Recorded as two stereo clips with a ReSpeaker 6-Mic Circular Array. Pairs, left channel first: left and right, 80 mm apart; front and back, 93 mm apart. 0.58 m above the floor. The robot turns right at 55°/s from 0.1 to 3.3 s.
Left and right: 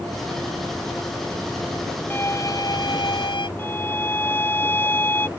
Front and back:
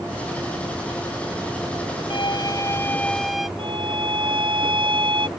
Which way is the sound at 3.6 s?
155° left.